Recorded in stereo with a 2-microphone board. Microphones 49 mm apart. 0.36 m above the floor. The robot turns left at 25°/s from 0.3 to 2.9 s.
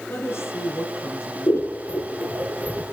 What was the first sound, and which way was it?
A woman speaking, 120° left.